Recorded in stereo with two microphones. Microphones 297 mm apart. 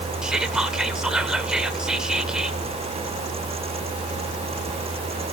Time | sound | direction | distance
0.2 | whispering | centre (ahead or behind) | 0.9 m